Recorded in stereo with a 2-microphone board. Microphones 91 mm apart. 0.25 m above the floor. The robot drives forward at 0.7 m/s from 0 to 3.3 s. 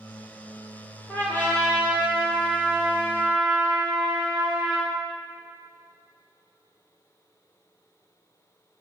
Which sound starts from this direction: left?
A trumpet, at 1.1 s.